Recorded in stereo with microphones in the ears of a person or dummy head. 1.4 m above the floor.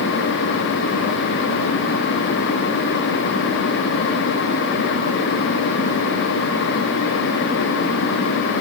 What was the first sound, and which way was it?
Only background noise.